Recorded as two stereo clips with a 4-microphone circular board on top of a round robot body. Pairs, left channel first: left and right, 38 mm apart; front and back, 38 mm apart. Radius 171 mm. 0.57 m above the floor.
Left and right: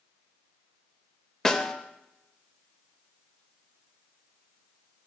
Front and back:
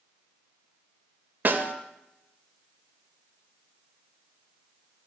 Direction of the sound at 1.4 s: 165° left.